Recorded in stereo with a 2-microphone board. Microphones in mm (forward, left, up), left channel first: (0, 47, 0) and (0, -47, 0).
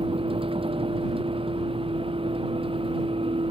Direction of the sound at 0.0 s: 75° right (ahead or behind).